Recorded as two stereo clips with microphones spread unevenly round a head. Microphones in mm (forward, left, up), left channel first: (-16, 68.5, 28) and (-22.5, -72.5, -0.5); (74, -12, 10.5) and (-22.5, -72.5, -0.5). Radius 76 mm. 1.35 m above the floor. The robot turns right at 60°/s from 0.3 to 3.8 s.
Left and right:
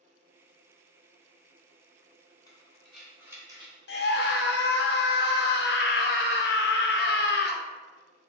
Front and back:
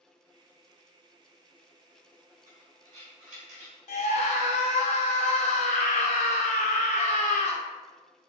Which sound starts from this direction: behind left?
Breathing, at 2.5 s.